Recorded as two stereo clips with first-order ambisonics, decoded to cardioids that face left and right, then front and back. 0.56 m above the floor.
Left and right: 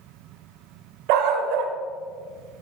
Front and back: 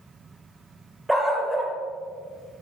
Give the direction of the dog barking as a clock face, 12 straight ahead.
3 o'clock.